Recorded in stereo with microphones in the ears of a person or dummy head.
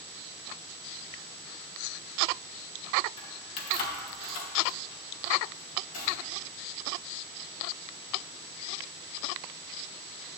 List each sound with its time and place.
3.2 s keys jangling: 35° left (ahead or behind), 1.5 m; by 6.1 s 45° left (ahead or behind), 2.5 m